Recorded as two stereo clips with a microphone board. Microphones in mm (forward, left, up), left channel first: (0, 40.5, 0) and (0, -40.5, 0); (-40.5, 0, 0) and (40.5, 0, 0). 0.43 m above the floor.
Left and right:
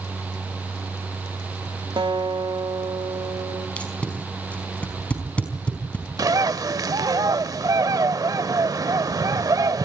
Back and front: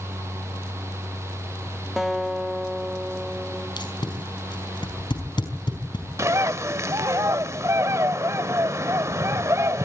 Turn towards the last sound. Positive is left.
turn(degrees=-50)